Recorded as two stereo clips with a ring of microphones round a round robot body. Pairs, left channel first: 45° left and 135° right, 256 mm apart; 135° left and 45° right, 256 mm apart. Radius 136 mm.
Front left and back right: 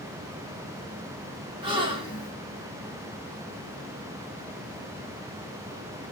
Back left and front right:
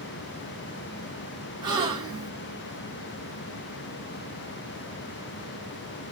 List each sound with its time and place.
1.6 s a gasp: 95° right, 0.5 m